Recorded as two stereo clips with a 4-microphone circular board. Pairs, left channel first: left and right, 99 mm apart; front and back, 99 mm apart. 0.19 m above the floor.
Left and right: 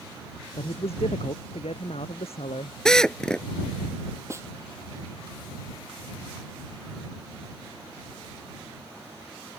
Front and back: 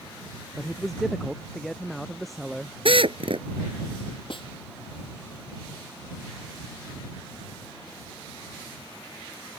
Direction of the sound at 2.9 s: 170° left.